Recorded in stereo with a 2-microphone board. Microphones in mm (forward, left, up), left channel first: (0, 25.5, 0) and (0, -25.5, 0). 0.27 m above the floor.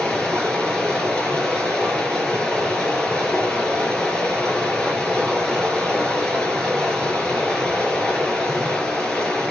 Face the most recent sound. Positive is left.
turn(degrees=10)  # may be behind; listen again after turning